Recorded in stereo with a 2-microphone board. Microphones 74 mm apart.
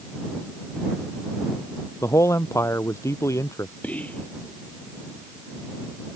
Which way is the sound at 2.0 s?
40° left (ahead or behind).